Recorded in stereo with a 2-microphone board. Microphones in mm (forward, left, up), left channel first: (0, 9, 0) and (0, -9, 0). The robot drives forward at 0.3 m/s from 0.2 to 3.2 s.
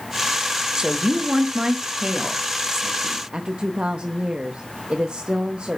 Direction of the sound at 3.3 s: 70° right (ahead or behind).